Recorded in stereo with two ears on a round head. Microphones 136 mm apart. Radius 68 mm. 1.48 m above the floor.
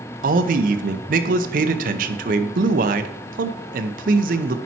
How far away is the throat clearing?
No throat clearing in this recording.